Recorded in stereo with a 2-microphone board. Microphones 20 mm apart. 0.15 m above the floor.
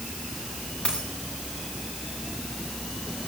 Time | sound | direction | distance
0.8 | a dropped coin | 55° left (ahead or behind) | 8 m